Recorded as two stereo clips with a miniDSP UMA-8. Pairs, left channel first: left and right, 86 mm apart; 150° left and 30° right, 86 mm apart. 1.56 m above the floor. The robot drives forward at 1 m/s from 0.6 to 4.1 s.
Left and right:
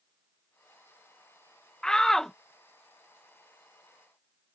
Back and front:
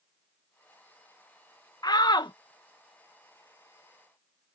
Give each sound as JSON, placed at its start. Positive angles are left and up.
{"t": 1.8, "sound": "a shout", "azimuth_deg": 170}